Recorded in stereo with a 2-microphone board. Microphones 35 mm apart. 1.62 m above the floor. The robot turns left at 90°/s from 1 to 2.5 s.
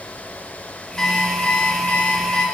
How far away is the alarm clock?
About 1.5 m.